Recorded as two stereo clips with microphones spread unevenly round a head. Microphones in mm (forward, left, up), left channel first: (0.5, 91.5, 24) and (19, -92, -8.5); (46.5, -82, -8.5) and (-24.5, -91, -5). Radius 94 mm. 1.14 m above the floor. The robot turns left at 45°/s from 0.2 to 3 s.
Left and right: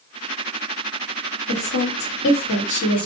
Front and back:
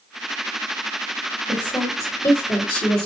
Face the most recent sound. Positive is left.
turn(degrees=30)